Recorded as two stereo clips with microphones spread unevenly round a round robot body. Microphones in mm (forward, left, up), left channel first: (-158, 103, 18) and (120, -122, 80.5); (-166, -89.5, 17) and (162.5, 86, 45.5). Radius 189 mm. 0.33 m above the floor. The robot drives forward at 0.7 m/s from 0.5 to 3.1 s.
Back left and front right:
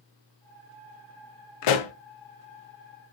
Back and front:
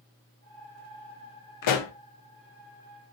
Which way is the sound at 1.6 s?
165° left.